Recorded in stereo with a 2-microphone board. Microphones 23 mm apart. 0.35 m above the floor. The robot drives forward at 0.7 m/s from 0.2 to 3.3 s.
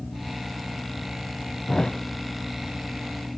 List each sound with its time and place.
1.7 s a thud: 50° left (ahead or behind), 1.0 m; by 2.0 s 60° left (ahead or behind), 1.0 m